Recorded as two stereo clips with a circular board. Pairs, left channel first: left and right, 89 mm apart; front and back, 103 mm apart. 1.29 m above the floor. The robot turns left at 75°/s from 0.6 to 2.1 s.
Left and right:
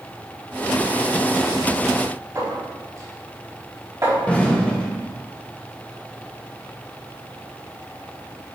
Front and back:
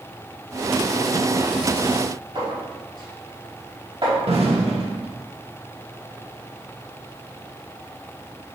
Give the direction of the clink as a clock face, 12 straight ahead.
5 o'clock.